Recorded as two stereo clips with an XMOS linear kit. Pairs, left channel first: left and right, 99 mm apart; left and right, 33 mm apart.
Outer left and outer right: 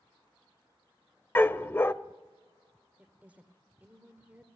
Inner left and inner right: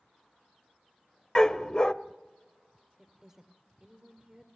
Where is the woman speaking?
15° right (ahead or behind), 2 m.